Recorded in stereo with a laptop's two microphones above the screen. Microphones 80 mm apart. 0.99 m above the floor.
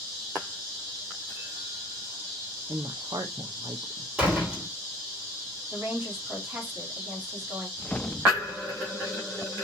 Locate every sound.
2.7 s a woman speaking: 55° right (ahead or behind), 0.6 m
4.2 s a door slam: 15° right (ahead or behind), 3 m
5.7 s a woman speaking: 25° right (ahead or behind), 2.5 m
7.8 s a whoosh: 15° left (ahead or behind), 0.5 m